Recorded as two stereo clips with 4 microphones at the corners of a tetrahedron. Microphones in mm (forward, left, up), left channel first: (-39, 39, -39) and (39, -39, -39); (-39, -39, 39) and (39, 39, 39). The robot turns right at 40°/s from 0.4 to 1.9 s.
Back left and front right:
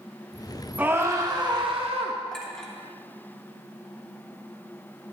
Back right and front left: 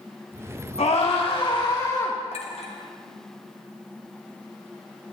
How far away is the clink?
About 1.3 m.